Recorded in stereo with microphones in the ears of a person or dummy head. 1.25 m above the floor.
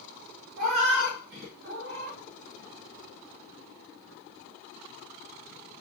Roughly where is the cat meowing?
Right.